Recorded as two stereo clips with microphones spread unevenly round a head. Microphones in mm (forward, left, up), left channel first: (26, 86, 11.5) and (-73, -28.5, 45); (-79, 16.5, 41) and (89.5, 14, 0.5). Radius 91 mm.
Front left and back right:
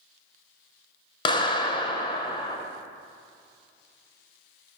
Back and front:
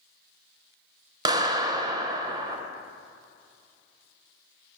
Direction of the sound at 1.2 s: 35° left.